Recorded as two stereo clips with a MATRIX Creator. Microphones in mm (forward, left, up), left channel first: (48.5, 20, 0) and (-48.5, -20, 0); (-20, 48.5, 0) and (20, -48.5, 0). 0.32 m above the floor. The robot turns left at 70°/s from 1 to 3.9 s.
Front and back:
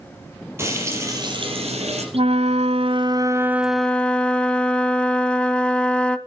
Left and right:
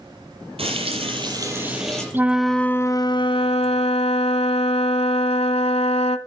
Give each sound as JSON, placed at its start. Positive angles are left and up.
{"t": 0.6, "sound": "frying", "azimuth_deg": -90, "distance_m": 5.5}
{"t": 2.1, "sound": "a flute", "azimuth_deg": -135, "distance_m": 0.8}